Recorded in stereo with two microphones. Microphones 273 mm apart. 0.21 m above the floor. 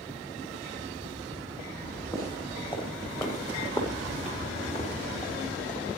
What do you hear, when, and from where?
1.8 s footsteps: 15° left (ahead or behind), 8 m; by 5.9 s 30° left (ahead or behind), 4.5 m